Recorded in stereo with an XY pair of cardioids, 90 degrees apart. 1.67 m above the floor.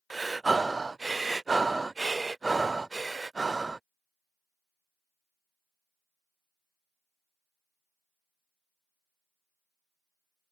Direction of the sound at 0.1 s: 25° right.